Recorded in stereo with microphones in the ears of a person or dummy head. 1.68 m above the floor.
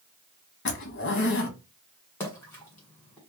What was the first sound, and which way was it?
A zipper, 55° left (ahead or behind).